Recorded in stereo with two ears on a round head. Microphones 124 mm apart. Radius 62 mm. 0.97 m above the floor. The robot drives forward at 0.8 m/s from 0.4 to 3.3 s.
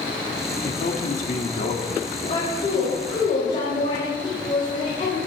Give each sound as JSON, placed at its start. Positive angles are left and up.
{"t": 0.6, "sound": "a man speaking", "side_deg": 70, "distance_m": 2.0}
{"t": 2.1, "sound": "a woman speaking", "side_deg": 35, "distance_m": 5.5}